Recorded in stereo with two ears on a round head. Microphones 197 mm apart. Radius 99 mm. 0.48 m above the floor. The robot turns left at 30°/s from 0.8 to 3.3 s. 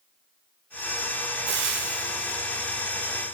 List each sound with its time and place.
1.5 s frying: 55° right (ahead or behind), 1.4 m; by 2.4 s 60° right (ahead or behind), 1.4 m